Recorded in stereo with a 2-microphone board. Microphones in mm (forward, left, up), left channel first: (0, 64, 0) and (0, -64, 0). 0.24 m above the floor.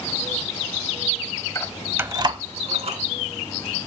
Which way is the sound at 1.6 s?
25° left (ahead or behind).